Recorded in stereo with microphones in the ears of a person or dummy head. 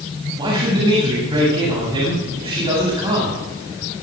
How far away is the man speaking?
About 8 m.